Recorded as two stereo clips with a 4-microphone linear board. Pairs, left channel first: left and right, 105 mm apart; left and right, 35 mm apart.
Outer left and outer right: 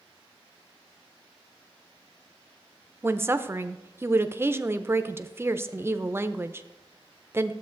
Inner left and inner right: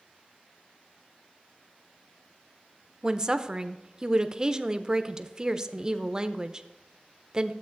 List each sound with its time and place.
3.0 s a woman speaking: 20° right (ahead or behind), 0.5 m